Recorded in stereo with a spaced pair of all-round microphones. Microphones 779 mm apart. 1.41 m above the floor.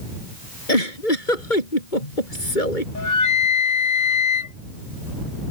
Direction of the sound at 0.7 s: 80° left.